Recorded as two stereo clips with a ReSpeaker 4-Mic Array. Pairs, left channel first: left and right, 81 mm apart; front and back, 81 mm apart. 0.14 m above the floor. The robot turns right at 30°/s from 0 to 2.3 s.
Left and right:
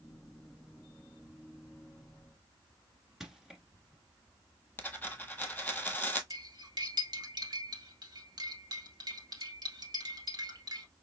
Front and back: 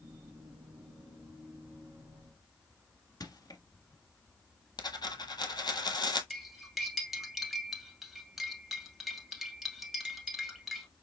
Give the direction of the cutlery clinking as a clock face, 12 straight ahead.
3 o'clock.